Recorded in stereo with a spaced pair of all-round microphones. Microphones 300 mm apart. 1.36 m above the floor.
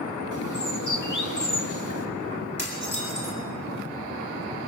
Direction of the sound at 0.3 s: 80° left.